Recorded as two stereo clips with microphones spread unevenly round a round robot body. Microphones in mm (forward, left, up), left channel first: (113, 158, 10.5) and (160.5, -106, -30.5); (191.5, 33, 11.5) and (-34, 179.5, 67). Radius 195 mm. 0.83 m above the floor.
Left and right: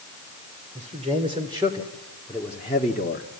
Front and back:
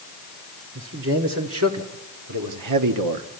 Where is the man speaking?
150° right, 2 m; by 3.3 s 165° left, 1.2 m.